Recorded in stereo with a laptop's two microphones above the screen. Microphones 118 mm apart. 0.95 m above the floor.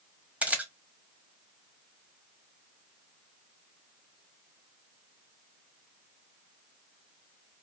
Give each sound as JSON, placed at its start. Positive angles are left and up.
{"t": 0.4, "sound": "a camera shutter", "side_deg": -10, "distance_m": 1.2}